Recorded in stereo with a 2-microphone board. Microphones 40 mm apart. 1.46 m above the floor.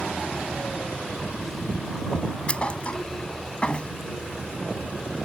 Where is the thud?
30° left (ahead or behind).